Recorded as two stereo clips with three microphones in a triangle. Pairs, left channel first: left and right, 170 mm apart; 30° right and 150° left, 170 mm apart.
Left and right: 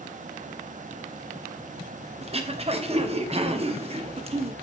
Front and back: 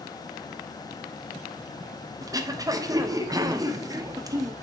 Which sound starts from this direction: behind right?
Throat clearing, at 2.2 s.